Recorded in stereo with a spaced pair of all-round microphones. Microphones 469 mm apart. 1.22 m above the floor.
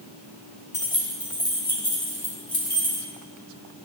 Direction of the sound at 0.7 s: 20° left (ahead or behind).